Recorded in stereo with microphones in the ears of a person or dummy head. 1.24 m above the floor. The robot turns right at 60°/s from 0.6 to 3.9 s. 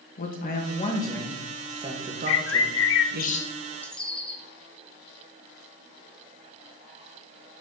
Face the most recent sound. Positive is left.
turn(degrees=5)  # may be behind; listen again after turning